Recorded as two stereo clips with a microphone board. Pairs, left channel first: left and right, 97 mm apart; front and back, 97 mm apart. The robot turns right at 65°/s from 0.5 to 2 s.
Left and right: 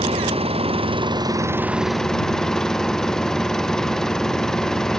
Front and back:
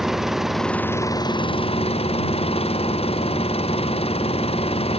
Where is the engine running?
90° right; by 5.0 s 5° left.